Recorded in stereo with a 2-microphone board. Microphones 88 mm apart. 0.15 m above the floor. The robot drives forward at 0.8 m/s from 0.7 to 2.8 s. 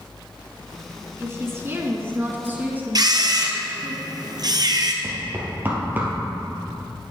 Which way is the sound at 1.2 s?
30° right (ahead or behind).